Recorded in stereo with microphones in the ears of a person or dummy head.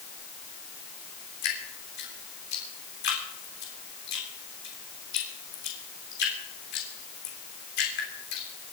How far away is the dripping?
About 3.5 m.